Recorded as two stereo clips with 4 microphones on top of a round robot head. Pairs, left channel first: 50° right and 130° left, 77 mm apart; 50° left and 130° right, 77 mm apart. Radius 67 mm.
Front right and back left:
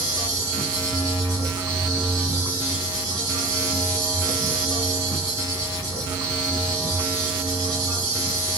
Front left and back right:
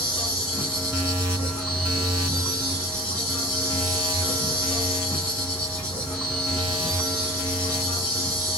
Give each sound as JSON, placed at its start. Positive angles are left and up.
{"t": 0.0, "sound": "an insect", "azimuth_deg": 100, "distance_m": 1.6}